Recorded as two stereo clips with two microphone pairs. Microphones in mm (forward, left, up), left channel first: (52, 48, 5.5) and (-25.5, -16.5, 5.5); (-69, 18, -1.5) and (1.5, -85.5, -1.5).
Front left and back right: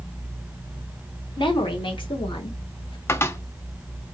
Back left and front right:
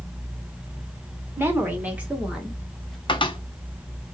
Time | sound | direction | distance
1.4 | a woman speaking | 15° left | 2.5 m
3.1 | a cupboard door | 95° left | 0.8 m